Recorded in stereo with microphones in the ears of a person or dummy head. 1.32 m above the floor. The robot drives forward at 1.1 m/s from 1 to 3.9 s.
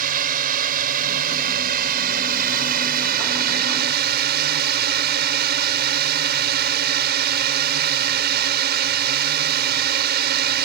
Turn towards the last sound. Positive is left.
turn(degrees=-55)  # may be behind; listen again after turning